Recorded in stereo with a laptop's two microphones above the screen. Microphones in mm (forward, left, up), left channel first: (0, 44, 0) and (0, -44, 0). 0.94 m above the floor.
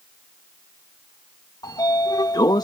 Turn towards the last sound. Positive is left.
turn(degrees=55)  # may be behind; listen again after turning